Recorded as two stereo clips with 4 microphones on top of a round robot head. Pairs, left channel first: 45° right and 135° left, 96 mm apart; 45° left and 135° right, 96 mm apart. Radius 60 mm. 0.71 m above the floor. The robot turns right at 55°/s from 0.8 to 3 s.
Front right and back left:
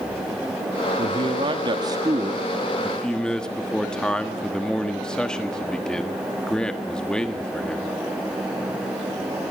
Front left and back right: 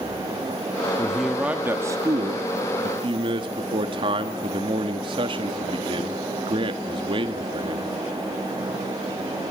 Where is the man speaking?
125° left, 1.3 m; by 8.0 s 125° right, 1.3 m.